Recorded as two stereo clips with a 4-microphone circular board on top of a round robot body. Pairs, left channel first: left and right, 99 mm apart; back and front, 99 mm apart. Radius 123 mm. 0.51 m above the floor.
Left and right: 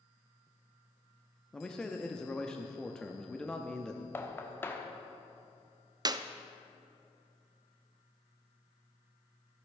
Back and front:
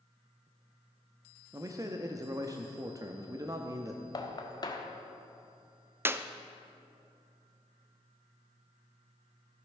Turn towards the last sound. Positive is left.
turn(degrees=-60)